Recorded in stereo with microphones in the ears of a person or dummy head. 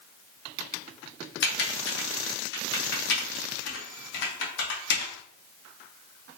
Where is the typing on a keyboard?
60° left (ahead or behind), 0.6 m.